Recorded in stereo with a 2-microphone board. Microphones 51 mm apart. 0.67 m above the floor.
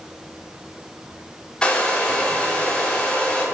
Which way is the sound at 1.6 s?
15° left (ahead or behind).